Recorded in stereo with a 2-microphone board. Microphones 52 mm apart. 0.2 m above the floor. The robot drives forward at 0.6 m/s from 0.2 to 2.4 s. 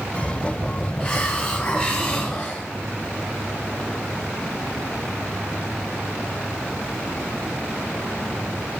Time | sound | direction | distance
1.0 | a hiss | 25° left (ahead or behind) | 2 m